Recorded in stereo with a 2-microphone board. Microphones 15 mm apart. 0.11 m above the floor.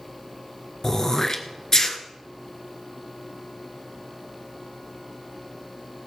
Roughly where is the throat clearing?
Left.